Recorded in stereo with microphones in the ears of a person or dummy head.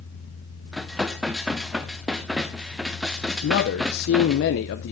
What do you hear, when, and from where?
0.7 s dishes clattering: 5° right (ahead or behind), 0.7 m
3.4 s a man speaking: 60° left (ahead or behind), 0.8 m